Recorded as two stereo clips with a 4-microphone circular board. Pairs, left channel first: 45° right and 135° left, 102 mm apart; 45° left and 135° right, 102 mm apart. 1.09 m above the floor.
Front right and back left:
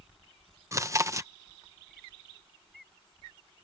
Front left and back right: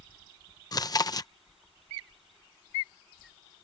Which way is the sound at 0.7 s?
80° left.